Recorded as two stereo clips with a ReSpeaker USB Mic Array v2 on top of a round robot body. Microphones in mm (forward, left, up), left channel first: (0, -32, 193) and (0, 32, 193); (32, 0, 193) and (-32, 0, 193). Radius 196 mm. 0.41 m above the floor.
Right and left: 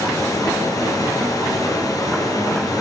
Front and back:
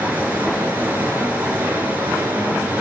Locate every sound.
0.0 s running water: 115° right, 5 m